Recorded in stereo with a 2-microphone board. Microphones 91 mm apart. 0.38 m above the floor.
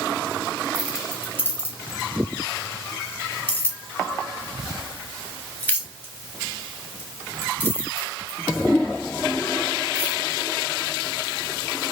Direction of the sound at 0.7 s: 20° left (ahead or behind).